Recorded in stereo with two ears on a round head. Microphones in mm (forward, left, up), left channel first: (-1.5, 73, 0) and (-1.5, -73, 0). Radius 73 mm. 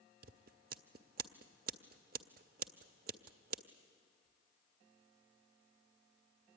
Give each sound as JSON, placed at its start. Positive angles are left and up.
{"t": 0.2, "sound": "scissors", "side_deg": -60, "distance_m": 0.7}